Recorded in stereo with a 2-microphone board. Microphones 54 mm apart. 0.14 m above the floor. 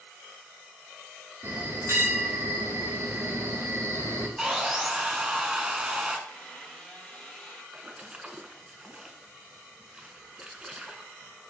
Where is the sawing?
10° right (ahead or behind), 0.7 m.